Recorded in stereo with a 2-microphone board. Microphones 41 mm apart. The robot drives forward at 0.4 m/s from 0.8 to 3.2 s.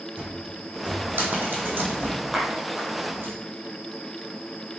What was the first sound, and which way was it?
A cupboard door, 50° right (ahead or behind).